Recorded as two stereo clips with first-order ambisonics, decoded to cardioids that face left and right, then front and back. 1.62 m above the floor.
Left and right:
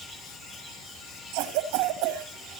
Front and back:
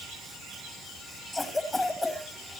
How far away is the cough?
About 2.5 m.